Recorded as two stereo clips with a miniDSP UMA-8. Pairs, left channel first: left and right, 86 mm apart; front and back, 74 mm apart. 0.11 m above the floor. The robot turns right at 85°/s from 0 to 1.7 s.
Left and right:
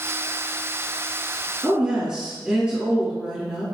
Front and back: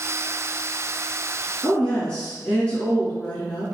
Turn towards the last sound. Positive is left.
turn(degrees=-35)